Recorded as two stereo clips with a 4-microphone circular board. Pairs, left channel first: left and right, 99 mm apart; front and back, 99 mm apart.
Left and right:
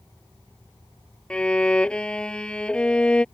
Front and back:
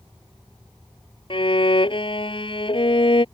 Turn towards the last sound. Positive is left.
turn(degrees=10)